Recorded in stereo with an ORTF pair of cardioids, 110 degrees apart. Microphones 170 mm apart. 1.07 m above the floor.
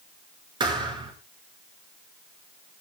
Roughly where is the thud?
Ahead right.